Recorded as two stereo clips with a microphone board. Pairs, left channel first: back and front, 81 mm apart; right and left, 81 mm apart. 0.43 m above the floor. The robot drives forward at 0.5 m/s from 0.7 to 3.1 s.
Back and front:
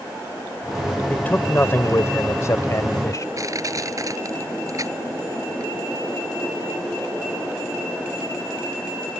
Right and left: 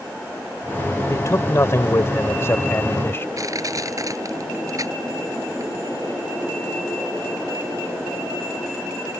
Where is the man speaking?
115° right; by 3.3 s 145° right.